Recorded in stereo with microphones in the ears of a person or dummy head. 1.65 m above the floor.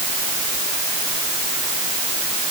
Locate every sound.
Only background noise.